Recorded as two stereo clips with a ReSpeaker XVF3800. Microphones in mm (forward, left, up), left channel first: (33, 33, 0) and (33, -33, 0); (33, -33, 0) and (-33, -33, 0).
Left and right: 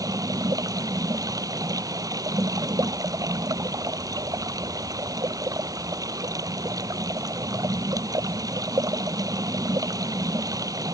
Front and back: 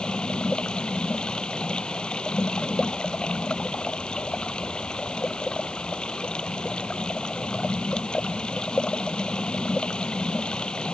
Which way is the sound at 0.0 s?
75° right.